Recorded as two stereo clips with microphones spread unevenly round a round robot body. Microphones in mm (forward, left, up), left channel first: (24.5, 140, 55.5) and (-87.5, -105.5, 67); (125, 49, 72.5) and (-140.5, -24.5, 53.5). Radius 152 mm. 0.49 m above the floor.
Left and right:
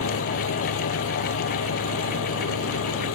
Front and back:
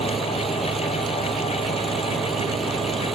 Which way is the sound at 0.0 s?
105° left.